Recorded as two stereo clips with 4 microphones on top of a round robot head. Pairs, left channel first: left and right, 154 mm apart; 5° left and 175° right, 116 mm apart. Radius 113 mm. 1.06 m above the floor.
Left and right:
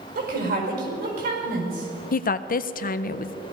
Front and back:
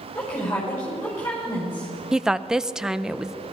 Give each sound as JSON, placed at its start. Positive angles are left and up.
{"t": 0.1, "sound": "a woman speaking", "azimuth_deg": -70, "distance_m": 5.5}
{"t": 2.1, "sound": "a woman speaking", "azimuth_deg": 100, "distance_m": 0.6}